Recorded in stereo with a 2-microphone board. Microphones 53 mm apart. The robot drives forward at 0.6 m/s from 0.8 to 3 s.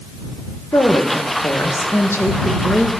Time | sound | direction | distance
0.7 | a woman speaking | 80° left | 1.7 m